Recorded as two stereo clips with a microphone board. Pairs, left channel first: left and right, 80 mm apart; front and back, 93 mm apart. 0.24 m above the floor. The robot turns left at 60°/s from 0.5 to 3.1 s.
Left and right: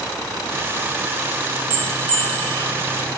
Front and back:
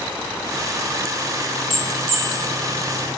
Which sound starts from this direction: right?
A bell, at 1.7 s.